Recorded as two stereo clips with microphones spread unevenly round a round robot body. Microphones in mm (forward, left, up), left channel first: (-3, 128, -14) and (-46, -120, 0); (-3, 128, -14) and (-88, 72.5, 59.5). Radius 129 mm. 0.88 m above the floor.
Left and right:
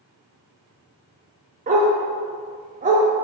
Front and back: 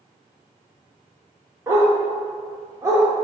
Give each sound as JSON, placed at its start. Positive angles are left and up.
{"t": 1.7, "sound": "a dog barking", "azimuth_deg": -155, "distance_m": 0.7}